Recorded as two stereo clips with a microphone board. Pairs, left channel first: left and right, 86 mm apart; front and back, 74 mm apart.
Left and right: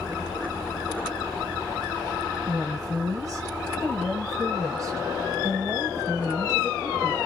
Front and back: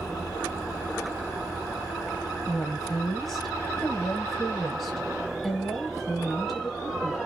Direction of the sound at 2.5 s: 85° right.